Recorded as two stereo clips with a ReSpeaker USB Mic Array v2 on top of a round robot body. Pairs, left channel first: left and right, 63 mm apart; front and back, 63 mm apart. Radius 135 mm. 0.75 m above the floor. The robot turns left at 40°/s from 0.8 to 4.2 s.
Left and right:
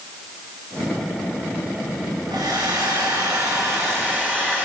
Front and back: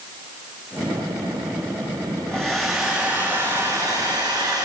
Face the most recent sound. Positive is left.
turn(degrees=-155)